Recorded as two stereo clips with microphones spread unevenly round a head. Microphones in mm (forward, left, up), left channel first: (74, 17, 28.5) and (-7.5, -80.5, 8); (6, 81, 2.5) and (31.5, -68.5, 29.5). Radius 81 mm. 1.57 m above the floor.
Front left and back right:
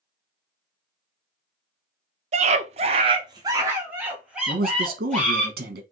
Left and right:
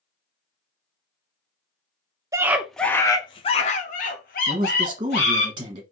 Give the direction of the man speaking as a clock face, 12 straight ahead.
5 o'clock.